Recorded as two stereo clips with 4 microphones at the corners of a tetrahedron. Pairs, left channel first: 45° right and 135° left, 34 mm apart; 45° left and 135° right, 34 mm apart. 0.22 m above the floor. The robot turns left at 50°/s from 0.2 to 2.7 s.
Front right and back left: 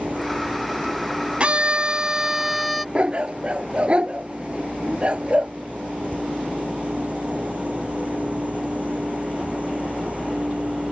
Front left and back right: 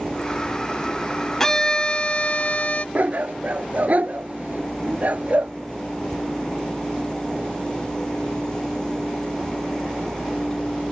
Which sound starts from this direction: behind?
A dog barking, at 3.0 s.